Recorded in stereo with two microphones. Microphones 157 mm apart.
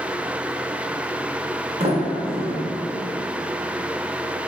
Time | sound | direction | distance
1.8 | a sliding door | 40° right (ahead or behind) | 0.5 m